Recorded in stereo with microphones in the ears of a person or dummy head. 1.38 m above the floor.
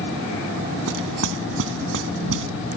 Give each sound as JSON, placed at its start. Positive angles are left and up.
{"t": 0.9, "sound": "knocking", "side_deg": -75}